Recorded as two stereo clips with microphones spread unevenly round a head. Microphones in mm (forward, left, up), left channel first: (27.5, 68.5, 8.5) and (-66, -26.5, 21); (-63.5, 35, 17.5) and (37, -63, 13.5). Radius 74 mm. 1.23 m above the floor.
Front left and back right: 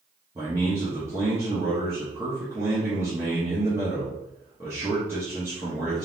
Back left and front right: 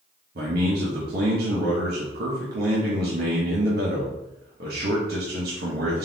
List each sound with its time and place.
0.3 s a man speaking: 60° right, 1.2 m